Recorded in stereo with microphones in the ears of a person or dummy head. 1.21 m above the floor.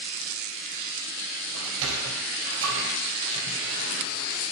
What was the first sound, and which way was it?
A sliding door, 75° right (ahead or behind).